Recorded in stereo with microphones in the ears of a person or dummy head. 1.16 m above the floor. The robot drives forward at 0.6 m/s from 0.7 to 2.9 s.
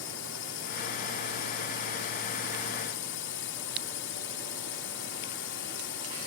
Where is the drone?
55° left (ahead or behind); by 6.3 s 50° left (ahead or behind).